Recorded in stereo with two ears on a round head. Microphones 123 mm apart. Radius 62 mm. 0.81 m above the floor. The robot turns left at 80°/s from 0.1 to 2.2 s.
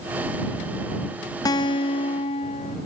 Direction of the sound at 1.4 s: 135° left.